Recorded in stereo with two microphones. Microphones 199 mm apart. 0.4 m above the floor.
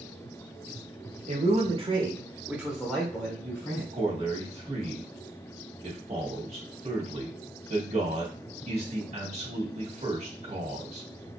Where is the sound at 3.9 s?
35° right (ahead or behind), 1.4 m.